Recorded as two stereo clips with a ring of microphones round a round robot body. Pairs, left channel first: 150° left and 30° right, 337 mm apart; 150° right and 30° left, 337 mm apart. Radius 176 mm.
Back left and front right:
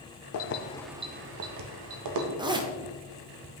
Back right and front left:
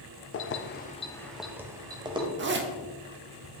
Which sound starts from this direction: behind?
Keys jangling, at 0.3 s.